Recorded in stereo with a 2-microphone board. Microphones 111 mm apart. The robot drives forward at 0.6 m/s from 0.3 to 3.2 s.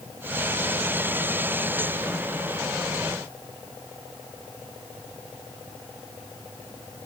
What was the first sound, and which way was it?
Only background noise.